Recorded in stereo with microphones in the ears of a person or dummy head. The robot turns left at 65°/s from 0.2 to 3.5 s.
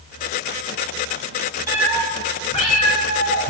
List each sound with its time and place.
1.7 s a cat meowing: 15° right (ahead or behind), 1.5 m; by 3.5 s 60° left (ahead or behind), 1.5 m